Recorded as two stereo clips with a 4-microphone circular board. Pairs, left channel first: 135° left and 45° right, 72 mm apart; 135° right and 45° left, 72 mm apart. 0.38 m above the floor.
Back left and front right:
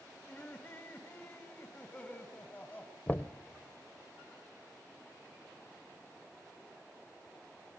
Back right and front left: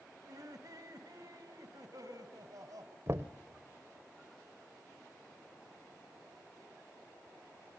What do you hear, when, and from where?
0.2 s laughter: 75° left, 2.5 m
3.1 s knocking: 80° left, 0.9 m